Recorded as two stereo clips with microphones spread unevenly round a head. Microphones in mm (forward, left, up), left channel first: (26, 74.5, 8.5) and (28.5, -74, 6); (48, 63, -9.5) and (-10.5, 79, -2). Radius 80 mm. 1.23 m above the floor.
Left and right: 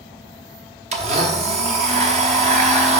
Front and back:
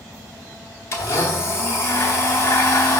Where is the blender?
65° right, 0.9 m.